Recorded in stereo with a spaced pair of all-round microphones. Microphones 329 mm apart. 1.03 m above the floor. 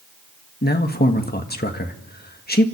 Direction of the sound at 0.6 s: 30° left (ahead or behind).